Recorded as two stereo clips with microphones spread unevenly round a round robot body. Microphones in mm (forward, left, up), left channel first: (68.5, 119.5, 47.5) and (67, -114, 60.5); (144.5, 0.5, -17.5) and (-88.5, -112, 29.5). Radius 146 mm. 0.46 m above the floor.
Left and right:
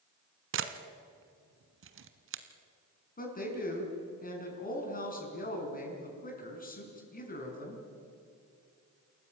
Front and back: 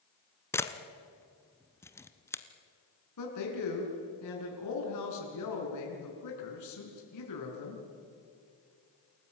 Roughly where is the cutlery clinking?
I don't hear cutlery clinking.